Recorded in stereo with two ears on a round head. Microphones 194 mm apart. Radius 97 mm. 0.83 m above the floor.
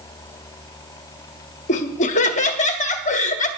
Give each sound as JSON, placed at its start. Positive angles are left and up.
{"t": 1.7, "sound": "laughter", "side_deg": 35, "distance_m": 1.3}